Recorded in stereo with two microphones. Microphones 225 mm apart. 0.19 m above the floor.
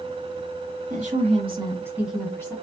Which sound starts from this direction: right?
A woman speaking, at 0.9 s.